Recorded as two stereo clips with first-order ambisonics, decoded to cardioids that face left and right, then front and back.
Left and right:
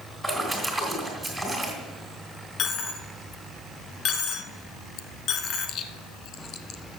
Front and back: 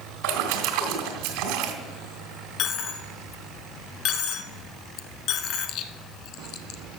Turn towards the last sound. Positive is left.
turn(degrees=40)